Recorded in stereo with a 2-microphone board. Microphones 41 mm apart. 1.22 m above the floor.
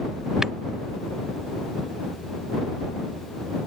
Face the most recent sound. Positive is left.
turn(degrees=-10)  # may be behind; listen again after turning